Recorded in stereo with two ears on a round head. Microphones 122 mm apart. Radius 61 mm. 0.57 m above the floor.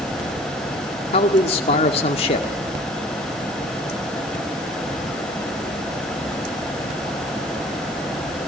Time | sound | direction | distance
1.1 | a man speaking | 45° left (ahead or behind) | 1.7 m